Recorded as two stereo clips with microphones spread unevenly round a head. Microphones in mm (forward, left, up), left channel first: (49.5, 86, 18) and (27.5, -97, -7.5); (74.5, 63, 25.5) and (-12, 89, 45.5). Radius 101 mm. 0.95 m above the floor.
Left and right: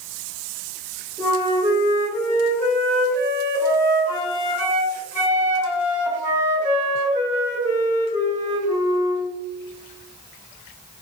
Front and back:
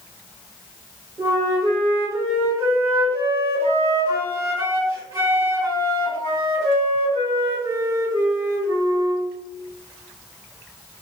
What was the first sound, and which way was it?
A flute, 140° right.